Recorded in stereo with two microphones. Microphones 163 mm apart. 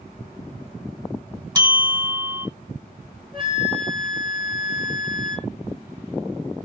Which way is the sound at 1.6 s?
25° right (ahead or behind).